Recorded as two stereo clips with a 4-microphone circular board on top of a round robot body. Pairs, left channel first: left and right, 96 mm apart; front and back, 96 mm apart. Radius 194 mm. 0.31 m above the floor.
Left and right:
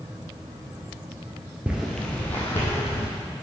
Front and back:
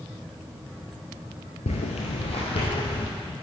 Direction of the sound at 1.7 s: 10° right.